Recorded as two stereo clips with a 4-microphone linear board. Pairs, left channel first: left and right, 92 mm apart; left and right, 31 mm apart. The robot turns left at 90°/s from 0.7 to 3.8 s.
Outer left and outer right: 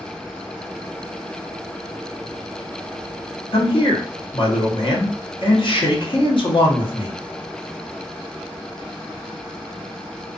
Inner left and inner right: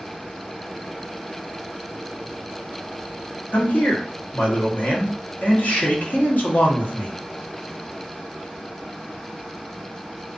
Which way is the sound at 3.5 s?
80° left.